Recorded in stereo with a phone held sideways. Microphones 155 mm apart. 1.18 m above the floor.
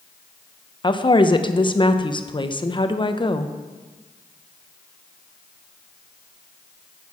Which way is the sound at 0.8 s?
30° left (ahead or behind).